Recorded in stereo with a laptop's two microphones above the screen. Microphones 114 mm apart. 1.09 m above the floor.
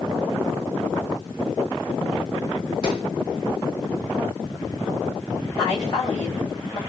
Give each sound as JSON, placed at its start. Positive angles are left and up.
{"t": 2.8, "sound": "a gunshot", "side_deg": 50, "distance_m": 4.0}
{"t": 5.6, "sound": "a woman speaking", "side_deg": 35, "distance_m": 4.5}